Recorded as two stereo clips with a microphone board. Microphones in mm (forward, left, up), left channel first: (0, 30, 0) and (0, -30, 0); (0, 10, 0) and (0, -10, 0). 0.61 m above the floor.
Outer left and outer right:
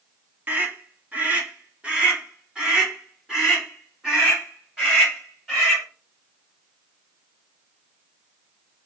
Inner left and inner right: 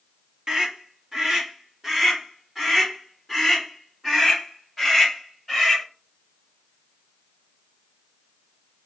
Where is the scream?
35° right (ahead or behind), 0.9 m; by 5.8 s 5° right (ahead or behind), 4 m.